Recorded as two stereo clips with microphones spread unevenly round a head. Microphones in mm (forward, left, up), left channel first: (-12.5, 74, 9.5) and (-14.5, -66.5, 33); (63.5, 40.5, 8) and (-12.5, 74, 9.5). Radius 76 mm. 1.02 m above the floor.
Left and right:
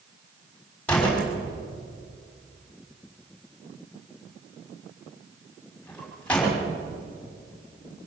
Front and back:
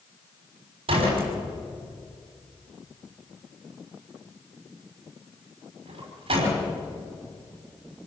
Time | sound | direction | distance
0.9 | a door slam | 170° left | 6 m